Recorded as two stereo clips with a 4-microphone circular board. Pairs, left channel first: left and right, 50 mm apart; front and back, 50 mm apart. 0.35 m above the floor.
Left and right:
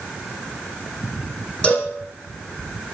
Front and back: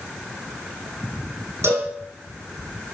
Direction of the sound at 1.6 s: 155° left.